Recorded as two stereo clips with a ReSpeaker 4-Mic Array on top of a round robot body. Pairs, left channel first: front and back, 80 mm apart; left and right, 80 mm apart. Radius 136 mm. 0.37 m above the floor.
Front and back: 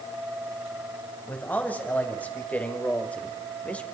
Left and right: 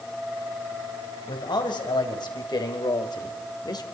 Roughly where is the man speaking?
Left.